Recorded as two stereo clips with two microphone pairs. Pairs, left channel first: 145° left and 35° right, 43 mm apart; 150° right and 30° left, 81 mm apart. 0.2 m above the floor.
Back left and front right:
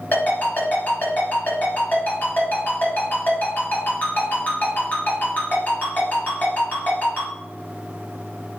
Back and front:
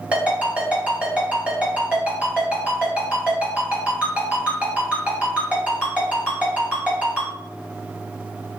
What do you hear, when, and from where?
0.1 s a ringtone: 105° left, 2 m